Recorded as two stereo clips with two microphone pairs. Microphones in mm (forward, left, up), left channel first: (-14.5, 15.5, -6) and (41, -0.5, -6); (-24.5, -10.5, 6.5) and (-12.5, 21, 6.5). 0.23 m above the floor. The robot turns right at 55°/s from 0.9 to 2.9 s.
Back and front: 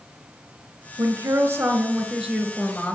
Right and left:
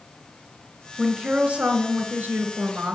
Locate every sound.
1.0 s a woman speaking: 5° left, 3 m; by 3.0 s 110° left, 3 m